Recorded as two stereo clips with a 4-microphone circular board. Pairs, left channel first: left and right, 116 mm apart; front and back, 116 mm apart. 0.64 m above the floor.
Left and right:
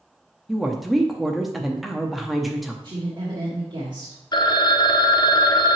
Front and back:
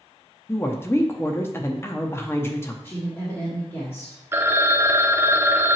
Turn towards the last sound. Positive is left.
turn(degrees=120)